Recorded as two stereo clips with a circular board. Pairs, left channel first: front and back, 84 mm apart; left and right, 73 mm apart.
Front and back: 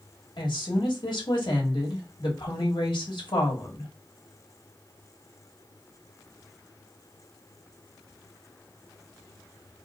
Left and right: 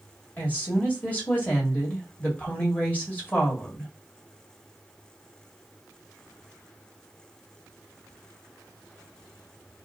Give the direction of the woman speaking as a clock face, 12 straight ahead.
11 o'clock.